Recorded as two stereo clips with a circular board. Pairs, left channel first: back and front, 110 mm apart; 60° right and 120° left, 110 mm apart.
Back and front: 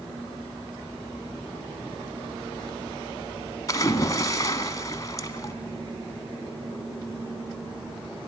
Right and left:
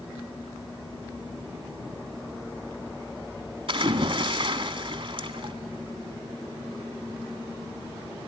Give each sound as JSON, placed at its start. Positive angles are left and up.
{"t": 3.7, "sound": "a splash", "azimuth_deg": 130, "distance_m": 1.5}